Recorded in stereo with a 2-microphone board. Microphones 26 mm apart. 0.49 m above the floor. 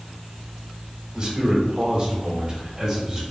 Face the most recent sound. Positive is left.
turn(degrees=-35)  # may be behind; listen again after turning